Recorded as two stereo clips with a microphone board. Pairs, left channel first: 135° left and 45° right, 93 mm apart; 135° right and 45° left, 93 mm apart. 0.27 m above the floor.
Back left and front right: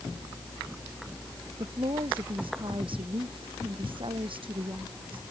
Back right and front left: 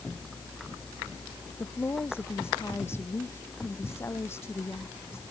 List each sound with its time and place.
1.6 s a woman speaking: 70° right